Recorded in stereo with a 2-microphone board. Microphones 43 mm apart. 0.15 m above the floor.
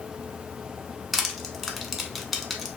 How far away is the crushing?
About 0.5 m.